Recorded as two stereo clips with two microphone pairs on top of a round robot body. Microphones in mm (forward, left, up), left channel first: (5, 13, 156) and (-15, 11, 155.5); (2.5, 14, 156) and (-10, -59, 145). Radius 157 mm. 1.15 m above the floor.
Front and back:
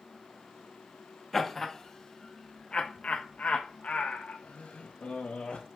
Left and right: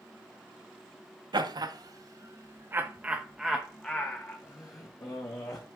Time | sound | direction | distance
1.3 | laughter | 80° right | 1.1 m